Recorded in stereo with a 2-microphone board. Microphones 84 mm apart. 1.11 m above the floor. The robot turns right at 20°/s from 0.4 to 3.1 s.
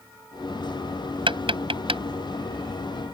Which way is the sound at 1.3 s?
70° right (ahead or behind).